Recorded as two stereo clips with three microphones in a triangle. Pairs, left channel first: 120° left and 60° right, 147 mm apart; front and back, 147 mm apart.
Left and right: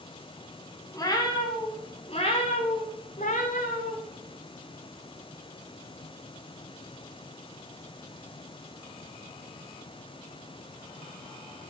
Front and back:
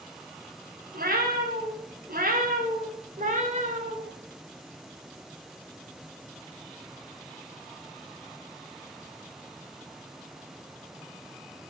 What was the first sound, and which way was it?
A cat meowing, 175° right.